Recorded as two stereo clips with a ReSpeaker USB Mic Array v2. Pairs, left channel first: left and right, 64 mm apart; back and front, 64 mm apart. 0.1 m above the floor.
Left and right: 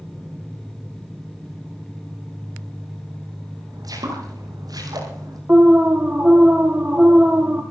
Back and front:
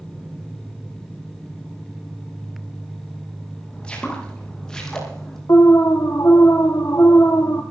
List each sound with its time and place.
3.7 s footsteps: 105° right, 7 m; by 5.4 s 95° right, 7.5 m
5.5 s an alarm: 150° right, 1.5 m